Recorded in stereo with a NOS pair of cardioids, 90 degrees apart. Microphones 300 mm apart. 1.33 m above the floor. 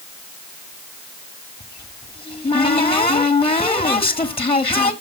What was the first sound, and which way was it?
A cupboard door, 20° left.